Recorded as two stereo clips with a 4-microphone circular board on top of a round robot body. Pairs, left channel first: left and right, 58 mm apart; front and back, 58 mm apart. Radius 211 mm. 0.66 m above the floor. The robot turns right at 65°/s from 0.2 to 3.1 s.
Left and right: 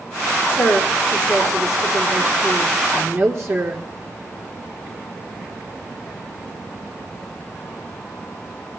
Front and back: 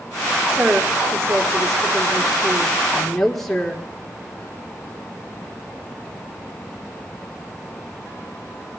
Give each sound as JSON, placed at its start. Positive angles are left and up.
{"t": 0.5, "sound": "a woman speaking", "azimuth_deg": 110, "distance_m": 1.4}